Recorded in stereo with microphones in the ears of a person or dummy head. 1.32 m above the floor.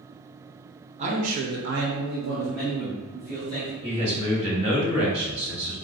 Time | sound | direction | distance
1.0 | a man speaking | 35° right (ahead or behind) | 1.0 m
3.8 | a man speaking | 35° right (ahead or behind) | 1.3 m